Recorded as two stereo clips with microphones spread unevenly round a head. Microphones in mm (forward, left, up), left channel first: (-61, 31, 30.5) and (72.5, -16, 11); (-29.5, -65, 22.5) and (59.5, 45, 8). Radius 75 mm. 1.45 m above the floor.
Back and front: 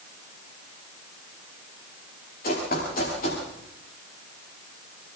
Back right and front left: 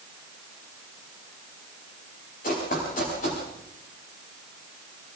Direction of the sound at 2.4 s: 165° right.